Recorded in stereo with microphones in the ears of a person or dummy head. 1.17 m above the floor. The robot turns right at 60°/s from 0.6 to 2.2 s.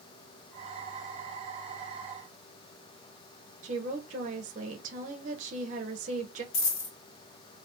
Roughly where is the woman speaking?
Right.